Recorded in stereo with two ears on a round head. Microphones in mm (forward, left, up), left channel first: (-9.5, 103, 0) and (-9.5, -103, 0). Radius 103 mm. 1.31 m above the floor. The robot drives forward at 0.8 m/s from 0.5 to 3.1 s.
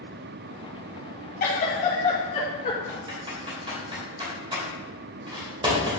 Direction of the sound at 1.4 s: 40° left (ahead or behind).